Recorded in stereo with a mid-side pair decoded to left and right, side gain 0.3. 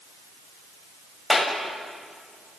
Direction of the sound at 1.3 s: 30° left.